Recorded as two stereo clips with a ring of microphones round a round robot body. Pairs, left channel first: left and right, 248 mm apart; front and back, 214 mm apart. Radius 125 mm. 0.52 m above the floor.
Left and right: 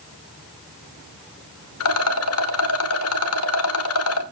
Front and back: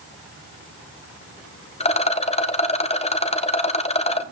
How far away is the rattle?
About 1.3 m.